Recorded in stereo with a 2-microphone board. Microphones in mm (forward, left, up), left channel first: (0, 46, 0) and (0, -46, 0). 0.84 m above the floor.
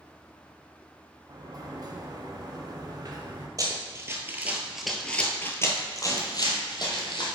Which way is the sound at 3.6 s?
40° right (ahead or behind).